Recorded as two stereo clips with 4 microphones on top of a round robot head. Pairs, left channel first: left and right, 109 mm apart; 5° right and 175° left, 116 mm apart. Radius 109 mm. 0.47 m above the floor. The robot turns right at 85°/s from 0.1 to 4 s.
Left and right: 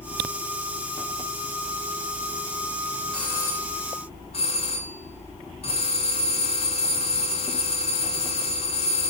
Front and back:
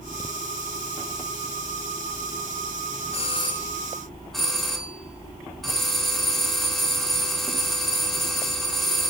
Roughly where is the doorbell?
Ahead.